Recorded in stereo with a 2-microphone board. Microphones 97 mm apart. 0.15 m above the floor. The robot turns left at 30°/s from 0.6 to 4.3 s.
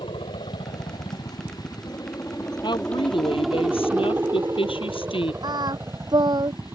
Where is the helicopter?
70° left (ahead or behind); by 6.8 s 25° right (ahead or behind).